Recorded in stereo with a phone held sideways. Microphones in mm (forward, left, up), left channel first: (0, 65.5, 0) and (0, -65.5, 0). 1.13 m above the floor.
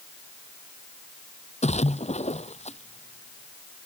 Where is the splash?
55° left (ahead or behind).